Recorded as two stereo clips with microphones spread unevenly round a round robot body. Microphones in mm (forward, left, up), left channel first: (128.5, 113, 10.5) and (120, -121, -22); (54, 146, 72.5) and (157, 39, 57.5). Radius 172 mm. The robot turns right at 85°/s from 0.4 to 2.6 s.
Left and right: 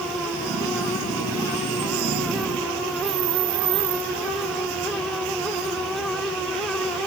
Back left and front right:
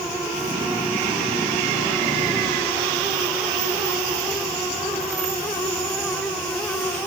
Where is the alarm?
I don't hear an alarm.